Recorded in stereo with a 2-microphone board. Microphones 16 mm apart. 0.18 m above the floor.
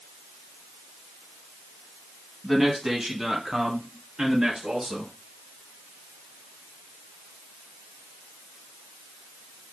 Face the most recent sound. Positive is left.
turn(degrees=-50)  # may be behind; listen again after turning